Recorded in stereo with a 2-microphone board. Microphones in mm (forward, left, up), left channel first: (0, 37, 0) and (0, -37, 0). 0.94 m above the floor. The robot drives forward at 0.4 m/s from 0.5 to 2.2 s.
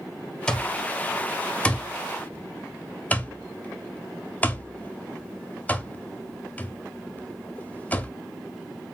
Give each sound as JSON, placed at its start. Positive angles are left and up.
{"t": 0.5, "sound": "an alarm clock", "side_deg": 10, "distance_m": 1.2}